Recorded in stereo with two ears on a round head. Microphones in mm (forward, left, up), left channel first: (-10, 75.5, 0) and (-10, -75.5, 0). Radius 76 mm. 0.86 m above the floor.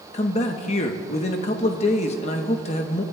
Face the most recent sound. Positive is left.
turn(degrees=40)  # may be behind; listen again after turning